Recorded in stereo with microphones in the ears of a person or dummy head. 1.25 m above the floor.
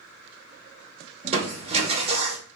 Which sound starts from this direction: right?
Crushing, at 1.2 s.